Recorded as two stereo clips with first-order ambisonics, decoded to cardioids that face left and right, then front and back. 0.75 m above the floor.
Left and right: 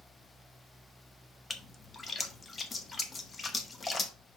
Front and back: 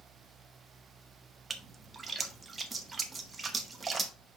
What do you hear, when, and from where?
1.5 s a splash: 135° left, 0.8 m